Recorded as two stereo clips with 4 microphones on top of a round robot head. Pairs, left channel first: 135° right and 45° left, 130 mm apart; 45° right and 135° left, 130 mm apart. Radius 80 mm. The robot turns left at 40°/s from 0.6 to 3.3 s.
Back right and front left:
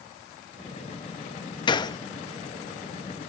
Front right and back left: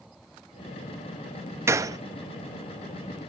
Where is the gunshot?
165° right, 1.0 m; by 2.0 s straight behind, 1.0 m.